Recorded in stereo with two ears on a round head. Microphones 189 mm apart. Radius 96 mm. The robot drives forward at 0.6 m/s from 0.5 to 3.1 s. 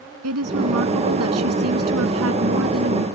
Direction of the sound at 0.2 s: 80° right.